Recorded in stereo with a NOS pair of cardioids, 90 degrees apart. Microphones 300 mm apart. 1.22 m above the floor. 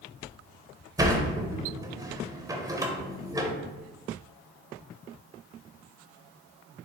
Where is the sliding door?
10° right, 0.5 m.